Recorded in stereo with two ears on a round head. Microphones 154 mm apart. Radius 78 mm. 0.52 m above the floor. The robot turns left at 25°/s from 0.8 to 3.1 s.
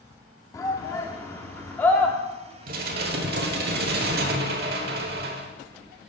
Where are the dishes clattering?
55° right (ahead or behind), 1.2 m; by 5.5 s 60° right (ahead or behind), 1.2 m.